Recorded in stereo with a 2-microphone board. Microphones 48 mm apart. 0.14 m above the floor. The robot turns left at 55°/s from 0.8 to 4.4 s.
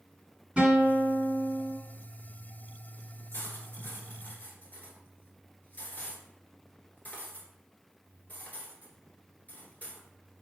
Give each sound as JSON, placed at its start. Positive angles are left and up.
{"t": 0.6, "sound": "a guitar", "side_deg": -25, "distance_m": 1.4}
{"t": 3.3, "sound": "cutlery clinking", "side_deg": 55, "distance_m": 1.2}